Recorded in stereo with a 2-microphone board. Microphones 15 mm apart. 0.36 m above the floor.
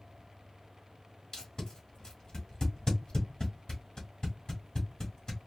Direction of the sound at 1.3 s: 40° left (ahead or behind).